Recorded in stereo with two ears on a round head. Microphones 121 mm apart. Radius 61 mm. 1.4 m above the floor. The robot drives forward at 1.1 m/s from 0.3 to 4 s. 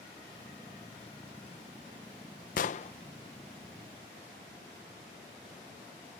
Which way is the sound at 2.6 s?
65° left (ahead or behind).